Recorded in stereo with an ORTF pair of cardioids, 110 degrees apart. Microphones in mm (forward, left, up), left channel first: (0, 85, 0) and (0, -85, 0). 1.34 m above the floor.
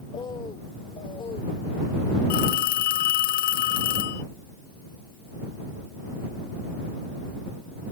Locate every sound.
0.1 s a bird: 30° left
2.3 s a phone ringing: 65° left